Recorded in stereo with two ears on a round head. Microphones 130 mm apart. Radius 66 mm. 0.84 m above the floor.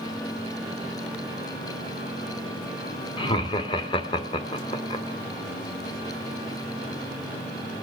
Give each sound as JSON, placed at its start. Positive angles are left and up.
{"t": 3.2, "sound": "laughter", "side_deg": 35, "distance_m": 1.8}